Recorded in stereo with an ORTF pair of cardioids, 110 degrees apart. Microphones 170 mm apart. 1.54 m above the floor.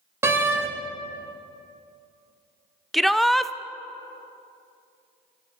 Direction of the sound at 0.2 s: 15° right.